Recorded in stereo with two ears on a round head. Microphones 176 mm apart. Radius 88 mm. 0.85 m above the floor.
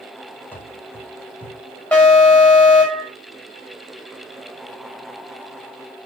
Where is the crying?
I don't hear crying.